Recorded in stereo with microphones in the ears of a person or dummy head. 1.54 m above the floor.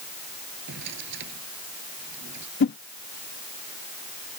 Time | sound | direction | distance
0.7 | a drawer | 60° right (ahead or behind) | ?
2.6 | a whoosh | 55° left (ahead or behind) | ?